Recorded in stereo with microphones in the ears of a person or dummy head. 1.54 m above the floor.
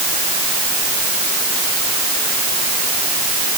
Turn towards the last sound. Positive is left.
No sound to turn to.